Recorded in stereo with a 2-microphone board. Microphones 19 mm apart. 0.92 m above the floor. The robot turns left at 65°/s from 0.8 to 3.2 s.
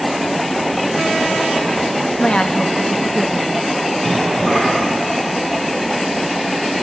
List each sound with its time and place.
2.2 s a woman speaking: 85° left, 1.3 m; by 3.6 s 20° left, 1.3 m
4.0 s a cough: 20° left (ahead or behind), 8 m